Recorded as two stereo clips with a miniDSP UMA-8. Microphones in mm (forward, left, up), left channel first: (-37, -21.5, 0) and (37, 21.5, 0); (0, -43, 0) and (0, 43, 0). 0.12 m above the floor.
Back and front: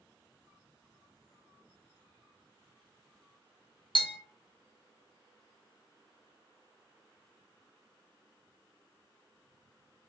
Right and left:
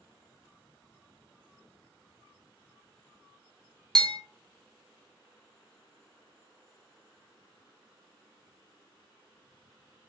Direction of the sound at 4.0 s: 175° right.